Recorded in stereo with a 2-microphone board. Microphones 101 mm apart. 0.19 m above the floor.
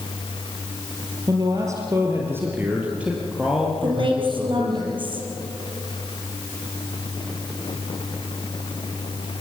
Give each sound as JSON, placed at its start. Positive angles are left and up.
{"t": 1.3, "sound": "a man speaking", "side_deg": -35, "distance_m": 3.5}
{"t": 3.8, "sound": "a woman speaking", "side_deg": -55, "distance_m": 5.5}